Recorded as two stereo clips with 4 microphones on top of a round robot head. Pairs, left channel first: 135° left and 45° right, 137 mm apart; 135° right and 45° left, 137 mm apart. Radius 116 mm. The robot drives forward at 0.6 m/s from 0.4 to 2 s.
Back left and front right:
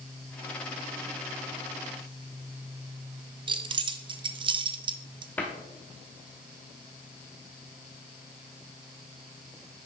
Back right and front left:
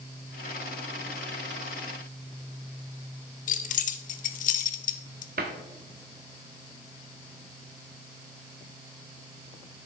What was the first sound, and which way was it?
Keys jangling, 105° right.